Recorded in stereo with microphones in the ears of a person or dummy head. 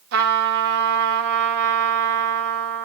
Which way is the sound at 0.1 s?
65° right (ahead or behind).